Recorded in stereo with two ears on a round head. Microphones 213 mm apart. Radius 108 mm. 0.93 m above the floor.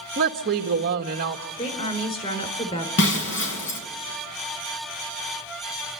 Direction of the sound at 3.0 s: 55° left (ahead or behind).